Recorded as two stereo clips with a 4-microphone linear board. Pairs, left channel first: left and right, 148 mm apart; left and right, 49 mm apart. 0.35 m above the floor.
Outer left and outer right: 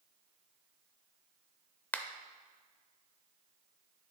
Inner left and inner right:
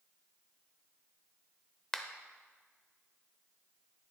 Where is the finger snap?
10° left (ahead or behind), 0.7 m.